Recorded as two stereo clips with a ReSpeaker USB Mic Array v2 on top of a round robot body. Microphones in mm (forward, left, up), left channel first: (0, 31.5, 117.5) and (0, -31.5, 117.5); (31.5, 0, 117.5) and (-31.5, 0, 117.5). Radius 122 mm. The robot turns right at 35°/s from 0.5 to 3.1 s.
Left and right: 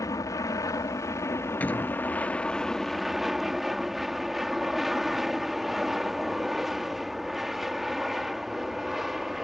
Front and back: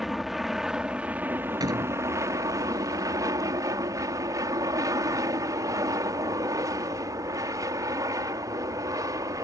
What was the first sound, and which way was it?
An aircraft, 90° left.